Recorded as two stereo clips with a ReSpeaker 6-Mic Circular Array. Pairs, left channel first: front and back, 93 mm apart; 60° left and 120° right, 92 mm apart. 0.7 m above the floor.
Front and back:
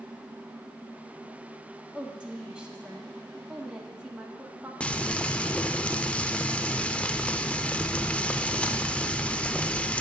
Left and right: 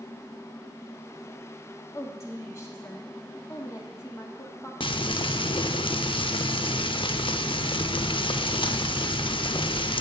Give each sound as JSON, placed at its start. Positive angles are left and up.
{"t": 1.9, "sound": "a woman speaking", "azimuth_deg": 105, "distance_m": 1.5}
{"t": 4.8, "sound": "frying", "azimuth_deg": 75, "distance_m": 0.5}